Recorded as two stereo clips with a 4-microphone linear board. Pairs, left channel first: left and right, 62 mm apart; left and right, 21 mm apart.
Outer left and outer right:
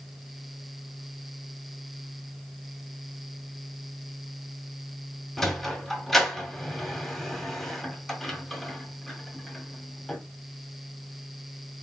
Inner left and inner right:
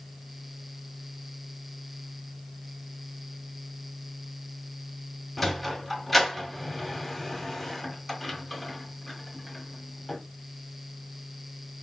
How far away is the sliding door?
About 1.6 m.